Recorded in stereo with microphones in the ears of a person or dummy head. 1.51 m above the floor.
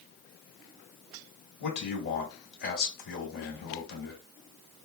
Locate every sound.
1.6 s a man speaking: 60° left (ahead or behind), 1.9 m